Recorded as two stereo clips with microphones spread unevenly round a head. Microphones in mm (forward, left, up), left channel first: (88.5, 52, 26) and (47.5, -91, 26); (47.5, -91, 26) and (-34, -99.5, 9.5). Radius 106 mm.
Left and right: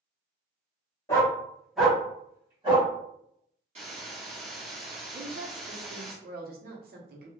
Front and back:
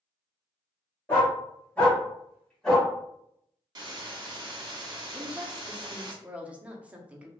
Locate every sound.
1.1 s a dog barking: 20° left, 1.4 m; by 2.9 s 65° right, 1.7 m
3.8 s a hiss: 150° right, 1.0 m
5.1 s a woman speaking: 95° right, 0.9 m